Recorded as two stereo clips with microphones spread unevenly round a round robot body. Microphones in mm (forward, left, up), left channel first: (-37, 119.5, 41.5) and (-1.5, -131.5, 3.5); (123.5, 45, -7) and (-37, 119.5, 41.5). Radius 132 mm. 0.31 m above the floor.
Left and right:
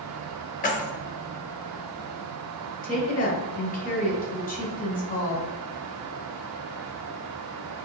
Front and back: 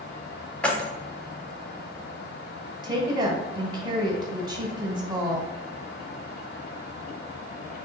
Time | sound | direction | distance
0.6 | keys jangling | 40° left | 0.8 m
2.8 | a woman speaking | 85° left | 1.2 m